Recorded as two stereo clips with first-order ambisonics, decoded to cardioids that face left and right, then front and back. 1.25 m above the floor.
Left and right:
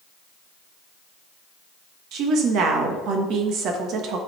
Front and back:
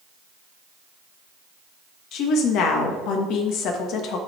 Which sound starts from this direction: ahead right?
A woman speaking, at 2.1 s.